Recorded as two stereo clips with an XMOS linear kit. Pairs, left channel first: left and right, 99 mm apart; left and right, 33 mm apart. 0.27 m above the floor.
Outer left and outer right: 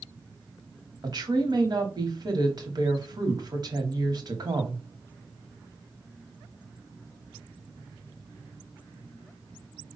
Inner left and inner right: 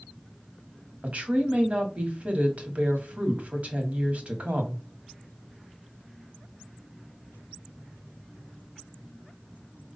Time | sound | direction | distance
1.0 | a woman speaking | 45° right (ahead or behind) | 1.2 m